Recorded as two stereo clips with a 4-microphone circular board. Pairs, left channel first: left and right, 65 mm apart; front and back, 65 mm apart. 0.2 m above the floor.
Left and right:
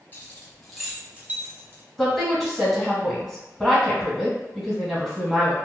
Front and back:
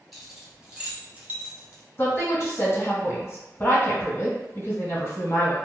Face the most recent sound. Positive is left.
turn(degrees=5)